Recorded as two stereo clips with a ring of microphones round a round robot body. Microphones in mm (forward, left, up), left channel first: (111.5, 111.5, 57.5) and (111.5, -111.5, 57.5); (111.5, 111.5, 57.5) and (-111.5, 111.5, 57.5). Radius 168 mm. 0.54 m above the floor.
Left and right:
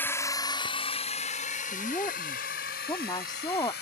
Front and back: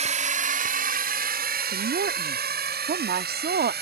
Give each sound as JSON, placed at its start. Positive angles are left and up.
{"t": 0.0, "sound": "a drone", "azimuth_deg": 165}
{"t": 1.7, "sound": "a woman speaking", "azimuth_deg": 155}